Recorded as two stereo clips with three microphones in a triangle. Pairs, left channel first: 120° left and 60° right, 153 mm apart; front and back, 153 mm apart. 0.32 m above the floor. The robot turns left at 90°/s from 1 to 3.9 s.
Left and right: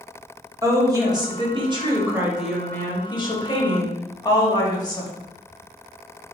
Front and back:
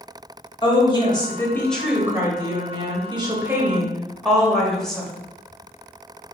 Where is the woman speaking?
15° right, 1.1 m; by 5.1 s 85° left, 1.1 m.